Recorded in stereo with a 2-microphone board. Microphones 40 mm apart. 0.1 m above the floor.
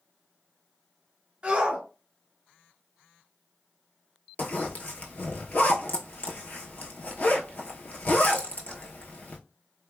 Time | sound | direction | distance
1.4 | a shout | 20° right (ahead or behind) | 1.4 m
4.4 | a zipper | 40° left (ahead or behind) | 0.6 m